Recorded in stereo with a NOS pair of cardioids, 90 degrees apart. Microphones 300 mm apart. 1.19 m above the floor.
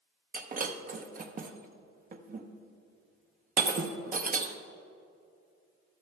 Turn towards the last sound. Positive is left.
turn(degrees=-30)